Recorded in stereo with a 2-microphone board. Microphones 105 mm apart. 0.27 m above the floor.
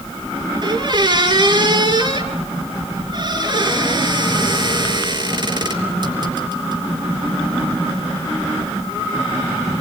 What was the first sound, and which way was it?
A squeak, 45° right (ahead or behind).